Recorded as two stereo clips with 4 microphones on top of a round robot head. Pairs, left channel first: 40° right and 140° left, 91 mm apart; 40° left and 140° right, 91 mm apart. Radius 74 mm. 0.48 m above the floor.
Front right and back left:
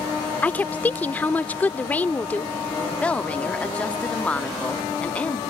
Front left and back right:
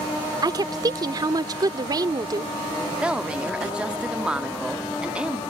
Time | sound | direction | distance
0.4 | a woman speaking | 110° right | ?
2.9 | a woman speaking | 85° right | ?